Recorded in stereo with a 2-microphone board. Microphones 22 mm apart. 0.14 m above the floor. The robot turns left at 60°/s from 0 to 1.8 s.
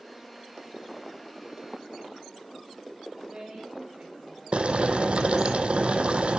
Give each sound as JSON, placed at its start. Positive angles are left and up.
{"t": 3.2, "sound": "a woman speaking", "side_deg": -45, "distance_m": 9.5}
{"t": 4.5, "sound": "boiling", "side_deg": -65, "distance_m": 1.0}